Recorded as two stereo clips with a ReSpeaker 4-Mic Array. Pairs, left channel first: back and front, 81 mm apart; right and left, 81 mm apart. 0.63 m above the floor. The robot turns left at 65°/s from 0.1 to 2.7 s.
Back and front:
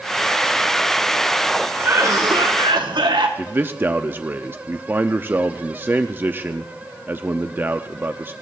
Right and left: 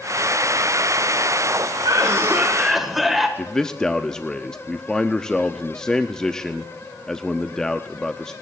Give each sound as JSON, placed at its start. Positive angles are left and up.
{"t": 1.8, "sound": "a cough", "azimuth_deg": 60, "distance_m": 1.8}
{"t": 3.4, "sound": "a man speaking", "azimuth_deg": -20, "distance_m": 0.6}